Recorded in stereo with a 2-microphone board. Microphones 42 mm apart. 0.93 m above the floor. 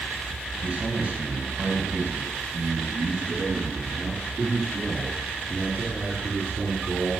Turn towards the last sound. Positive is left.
turn(degrees=-50)  # may be behind; listen again after turning